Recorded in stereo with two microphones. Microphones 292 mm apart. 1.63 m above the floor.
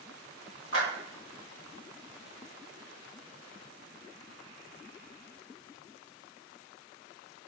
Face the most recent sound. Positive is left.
turn(degrees=50)  # may be behind; listen again after turning